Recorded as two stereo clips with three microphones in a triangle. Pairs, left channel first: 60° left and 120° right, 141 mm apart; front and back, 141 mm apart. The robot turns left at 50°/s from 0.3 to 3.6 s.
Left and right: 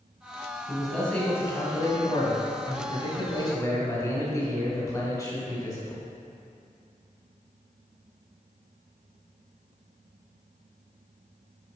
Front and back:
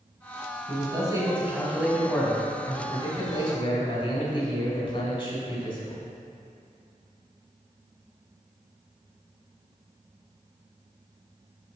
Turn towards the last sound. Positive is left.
turn(degrees=10)